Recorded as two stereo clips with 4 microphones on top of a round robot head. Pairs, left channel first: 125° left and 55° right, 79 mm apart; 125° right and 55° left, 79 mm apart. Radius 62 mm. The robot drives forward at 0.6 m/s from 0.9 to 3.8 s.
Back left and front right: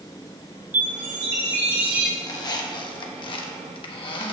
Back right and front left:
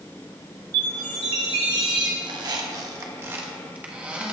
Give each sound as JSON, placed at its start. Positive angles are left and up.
{"t": 0.7, "sound": "a chime", "azimuth_deg": 10, "distance_m": 1.9}
{"t": 2.2, "sound": "a squeak", "azimuth_deg": 80, "distance_m": 1.1}